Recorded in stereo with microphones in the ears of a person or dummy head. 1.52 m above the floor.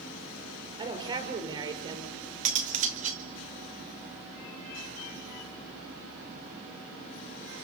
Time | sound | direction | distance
0.8 | a woman speaking | 25° right (ahead or behind) | 6 m
2.5 | cutlery clinking | 40° right (ahead or behind) | 1.6 m